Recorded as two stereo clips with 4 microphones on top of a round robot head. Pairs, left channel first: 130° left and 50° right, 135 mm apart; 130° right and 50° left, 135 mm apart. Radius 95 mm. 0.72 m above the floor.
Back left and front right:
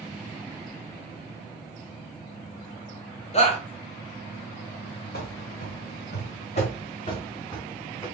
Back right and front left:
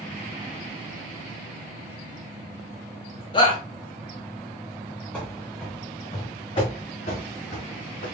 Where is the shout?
175° left, 2.5 m.